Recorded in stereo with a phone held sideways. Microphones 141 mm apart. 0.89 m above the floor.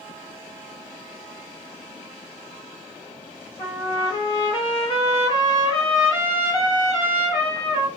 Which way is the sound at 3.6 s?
40° left (ahead or behind).